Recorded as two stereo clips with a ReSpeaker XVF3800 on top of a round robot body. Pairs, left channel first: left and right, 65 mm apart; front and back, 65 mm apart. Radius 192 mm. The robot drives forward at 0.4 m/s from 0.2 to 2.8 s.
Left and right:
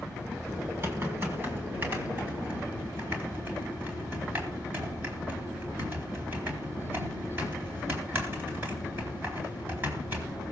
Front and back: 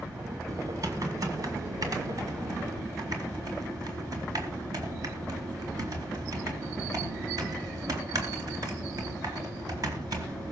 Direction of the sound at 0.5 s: 140° right.